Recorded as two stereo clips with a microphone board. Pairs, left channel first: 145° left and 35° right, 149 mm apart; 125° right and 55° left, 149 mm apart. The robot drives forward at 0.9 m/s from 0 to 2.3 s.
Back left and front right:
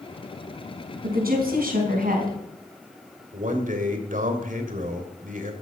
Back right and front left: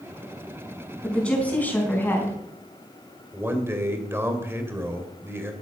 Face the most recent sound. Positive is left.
turn(degrees=-15)